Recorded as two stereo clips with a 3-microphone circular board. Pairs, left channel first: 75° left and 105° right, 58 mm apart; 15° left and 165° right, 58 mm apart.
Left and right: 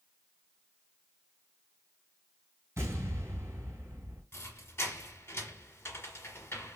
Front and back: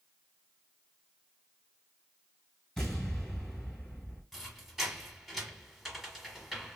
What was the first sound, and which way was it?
An explosion, 65° right.